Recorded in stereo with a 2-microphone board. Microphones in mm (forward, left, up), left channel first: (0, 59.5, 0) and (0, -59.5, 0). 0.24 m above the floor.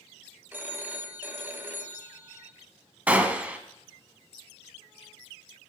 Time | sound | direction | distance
0.5 | a phone ringing | 15° right (ahead or behind) | 0.7 m
3.1 | a gunshot | 10° right (ahead or behind) | 0.6 m